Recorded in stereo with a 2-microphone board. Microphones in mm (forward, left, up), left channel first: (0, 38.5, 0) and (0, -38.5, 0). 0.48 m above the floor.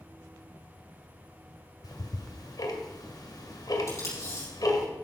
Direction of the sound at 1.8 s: 65° left (ahead or behind).